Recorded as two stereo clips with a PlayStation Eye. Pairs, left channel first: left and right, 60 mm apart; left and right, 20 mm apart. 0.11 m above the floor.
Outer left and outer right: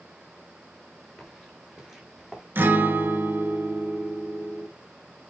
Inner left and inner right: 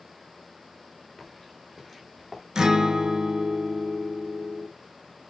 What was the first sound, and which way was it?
Footsteps, 5° left (ahead or behind).